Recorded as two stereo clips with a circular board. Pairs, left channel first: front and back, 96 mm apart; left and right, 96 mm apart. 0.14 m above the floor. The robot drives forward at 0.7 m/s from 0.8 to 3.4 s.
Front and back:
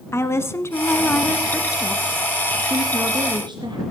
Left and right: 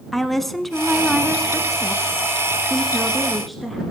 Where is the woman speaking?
5° left, 1.2 m; by 3.8 s straight behind, 1.7 m.